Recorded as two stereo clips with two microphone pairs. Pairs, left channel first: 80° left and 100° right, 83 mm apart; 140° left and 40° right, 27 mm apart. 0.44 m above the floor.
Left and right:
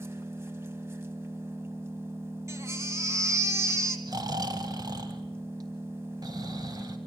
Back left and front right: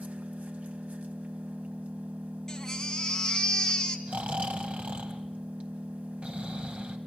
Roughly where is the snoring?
Right.